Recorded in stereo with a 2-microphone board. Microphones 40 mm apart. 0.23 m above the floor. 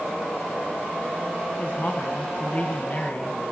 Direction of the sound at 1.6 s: 45° left (ahead or behind).